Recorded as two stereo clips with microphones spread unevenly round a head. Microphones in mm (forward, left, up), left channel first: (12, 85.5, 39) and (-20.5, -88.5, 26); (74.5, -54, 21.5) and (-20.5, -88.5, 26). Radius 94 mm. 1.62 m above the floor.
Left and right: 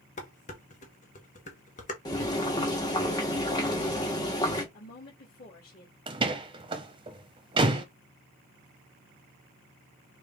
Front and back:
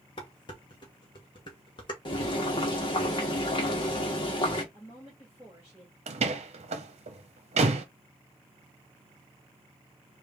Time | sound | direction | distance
0.2 | dishes clattering | 55° left | 1.0 m
2.0 | boiling | 25° left | 1.3 m
4.7 | a woman speaking | 120° left | 2.5 m
6.1 | a door slam | 165° right | 0.9 m